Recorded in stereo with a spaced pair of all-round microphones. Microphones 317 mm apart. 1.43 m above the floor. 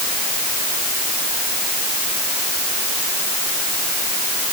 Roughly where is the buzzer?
No buzzer in this recording.